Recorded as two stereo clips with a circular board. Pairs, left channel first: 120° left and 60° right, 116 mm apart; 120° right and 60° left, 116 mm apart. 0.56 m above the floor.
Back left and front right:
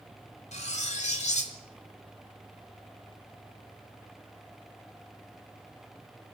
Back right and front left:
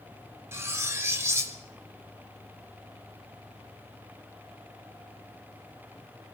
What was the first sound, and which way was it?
Cutlery clinking, 125° left.